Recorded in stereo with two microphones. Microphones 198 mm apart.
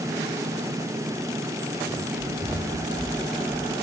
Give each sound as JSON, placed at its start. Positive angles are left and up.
{"t": 1.9, "sound": "running footsteps", "side_deg": -5, "distance_m": 9.5}